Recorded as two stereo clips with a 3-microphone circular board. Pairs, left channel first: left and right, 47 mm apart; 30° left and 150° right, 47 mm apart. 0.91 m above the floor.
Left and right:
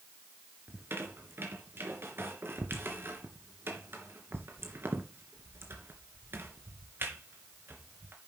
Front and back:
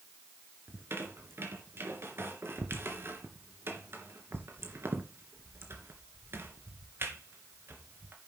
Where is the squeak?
120° right, 3 m.